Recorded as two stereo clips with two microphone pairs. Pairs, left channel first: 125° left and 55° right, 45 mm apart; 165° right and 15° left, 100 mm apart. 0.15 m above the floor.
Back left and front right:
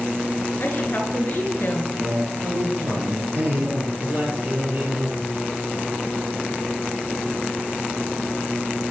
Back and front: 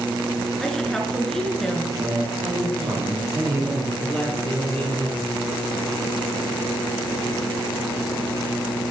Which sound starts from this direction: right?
A man speaking, at 4.0 s.